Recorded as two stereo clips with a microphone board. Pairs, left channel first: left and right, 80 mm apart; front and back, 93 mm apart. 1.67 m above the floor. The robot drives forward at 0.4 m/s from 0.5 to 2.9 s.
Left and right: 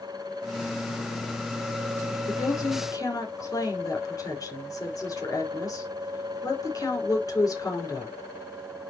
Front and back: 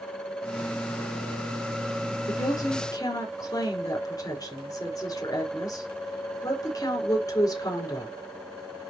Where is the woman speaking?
45° left, 5 m; by 8.1 s 50° left, 4.5 m.